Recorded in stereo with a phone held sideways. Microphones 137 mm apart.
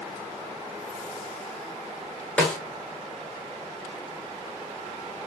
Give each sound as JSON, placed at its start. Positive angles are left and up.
{"t": 2.4, "sound": "a snare drum", "side_deg": 5, "distance_m": 0.7}